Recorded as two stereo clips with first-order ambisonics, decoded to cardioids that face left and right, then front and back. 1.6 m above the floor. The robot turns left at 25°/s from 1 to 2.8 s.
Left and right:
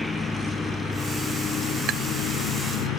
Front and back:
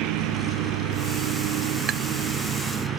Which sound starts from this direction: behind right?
Tapping, at 1.9 s.